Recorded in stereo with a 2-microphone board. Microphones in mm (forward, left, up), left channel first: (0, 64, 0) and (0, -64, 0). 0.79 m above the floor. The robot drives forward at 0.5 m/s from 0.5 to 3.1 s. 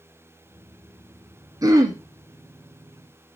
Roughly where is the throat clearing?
Right.